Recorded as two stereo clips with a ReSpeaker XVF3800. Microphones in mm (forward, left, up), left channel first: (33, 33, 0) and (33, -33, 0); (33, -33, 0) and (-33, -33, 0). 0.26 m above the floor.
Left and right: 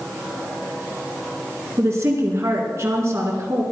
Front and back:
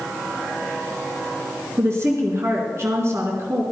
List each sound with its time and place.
1.8 s a woman speaking: 135° right, 3.5 m